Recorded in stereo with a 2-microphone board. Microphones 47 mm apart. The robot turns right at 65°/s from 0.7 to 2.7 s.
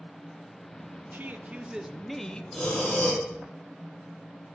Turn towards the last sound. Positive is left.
turn(degrees=15)  # may be behind; listen again after turning